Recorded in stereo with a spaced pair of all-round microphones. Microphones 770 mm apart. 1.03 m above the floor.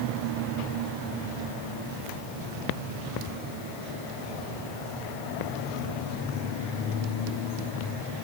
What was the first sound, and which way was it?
Only background noise.